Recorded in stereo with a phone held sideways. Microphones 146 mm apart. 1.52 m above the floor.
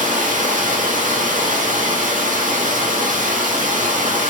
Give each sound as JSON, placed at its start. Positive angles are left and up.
{"t": 0.0, "sound": "running water", "side_deg": -70, "distance_m": 0.8}